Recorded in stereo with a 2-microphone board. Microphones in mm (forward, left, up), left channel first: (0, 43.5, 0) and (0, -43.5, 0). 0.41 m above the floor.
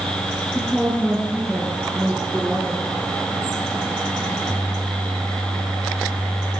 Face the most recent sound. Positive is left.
turn(degrees=-5)  # may be behind; listen again after turning